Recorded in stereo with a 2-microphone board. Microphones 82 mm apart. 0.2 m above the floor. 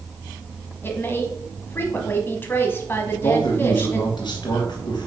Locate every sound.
0.8 s a woman speaking: 25° left (ahead or behind), 1.2 m
3.1 s a man speaking: 60° left (ahead or behind), 2.5 m